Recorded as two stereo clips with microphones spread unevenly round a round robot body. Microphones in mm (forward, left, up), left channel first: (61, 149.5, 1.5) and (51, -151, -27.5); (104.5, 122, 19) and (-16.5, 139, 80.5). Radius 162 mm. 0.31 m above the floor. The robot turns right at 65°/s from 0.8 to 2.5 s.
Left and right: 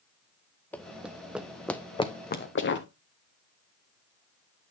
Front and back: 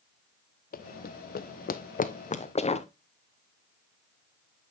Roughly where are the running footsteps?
Ahead.